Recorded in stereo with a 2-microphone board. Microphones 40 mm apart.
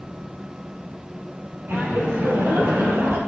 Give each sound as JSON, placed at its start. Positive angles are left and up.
{"t": 1.7, "sound": "laughter", "side_deg": -65, "distance_m": 4.5}